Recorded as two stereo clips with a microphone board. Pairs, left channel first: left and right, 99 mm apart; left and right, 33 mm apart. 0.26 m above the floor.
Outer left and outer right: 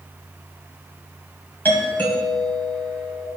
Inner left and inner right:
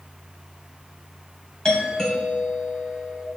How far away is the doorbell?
About 2 m.